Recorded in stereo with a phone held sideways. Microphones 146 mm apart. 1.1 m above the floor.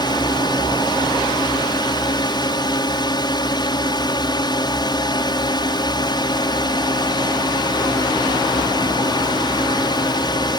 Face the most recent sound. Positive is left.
turn(degrees=30)  # may be behind; listen again after turning